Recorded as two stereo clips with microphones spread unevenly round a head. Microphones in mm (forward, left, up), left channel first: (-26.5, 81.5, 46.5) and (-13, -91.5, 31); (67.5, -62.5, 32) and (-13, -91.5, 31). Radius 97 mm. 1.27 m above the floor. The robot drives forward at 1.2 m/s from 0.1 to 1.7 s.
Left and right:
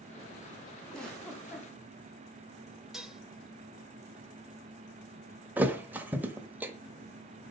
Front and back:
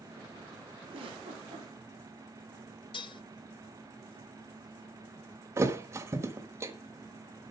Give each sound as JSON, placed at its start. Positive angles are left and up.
{"t": 0.9, "sound": "a giggle", "azimuth_deg": 180, "distance_m": 4.0}
{"t": 2.9, "sound": "dishes clattering", "azimuth_deg": 5, "distance_m": 0.8}
{"t": 5.6, "sound": "a thud", "azimuth_deg": -165, "distance_m": 1.1}